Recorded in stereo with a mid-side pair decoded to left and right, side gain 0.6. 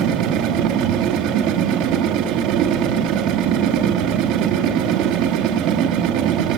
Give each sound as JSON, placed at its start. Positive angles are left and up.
{"t": 0.0, "sound": "a machine running", "azimuth_deg": -70, "distance_m": 1.5}